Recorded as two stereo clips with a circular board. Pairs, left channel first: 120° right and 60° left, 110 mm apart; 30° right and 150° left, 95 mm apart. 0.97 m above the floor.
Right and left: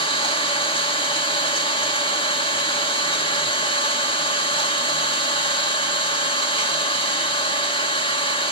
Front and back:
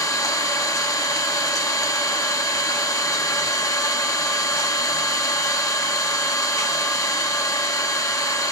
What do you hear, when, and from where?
0.0 s an engine running: 85° right, 1.7 m